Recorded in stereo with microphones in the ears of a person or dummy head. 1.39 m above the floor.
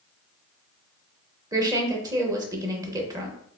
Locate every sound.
1.5 s a woman speaking: 20° right (ahead or behind), 0.9 m